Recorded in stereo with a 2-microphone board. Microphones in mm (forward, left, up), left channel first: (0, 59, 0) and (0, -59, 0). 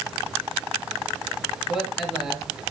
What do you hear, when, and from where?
1.7 s a man speaking: centre (ahead or behind), 7.5 m